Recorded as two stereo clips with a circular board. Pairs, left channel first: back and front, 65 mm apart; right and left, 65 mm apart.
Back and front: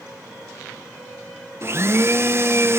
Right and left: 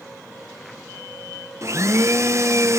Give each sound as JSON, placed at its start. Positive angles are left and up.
{"t": 1.6, "sound": "a blender", "azimuth_deg": 50, "distance_m": 0.7}